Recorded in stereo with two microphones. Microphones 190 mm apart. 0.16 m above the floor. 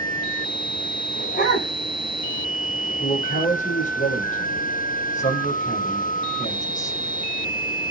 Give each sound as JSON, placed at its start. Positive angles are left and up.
{"t": 1.1, "sound": "a dog barking", "side_deg": 50, "distance_m": 8.5}
{"t": 3.0, "sound": "a man speaking", "side_deg": 40, "distance_m": 6.5}